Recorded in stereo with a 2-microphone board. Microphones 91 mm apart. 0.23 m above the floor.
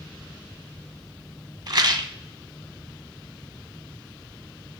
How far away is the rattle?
About 0.6 m.